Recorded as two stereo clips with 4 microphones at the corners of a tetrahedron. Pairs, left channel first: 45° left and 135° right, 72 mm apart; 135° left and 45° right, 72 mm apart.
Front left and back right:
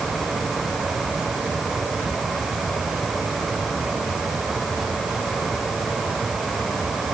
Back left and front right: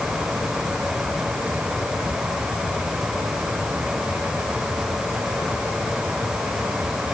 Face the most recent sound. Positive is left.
No sound to turn to.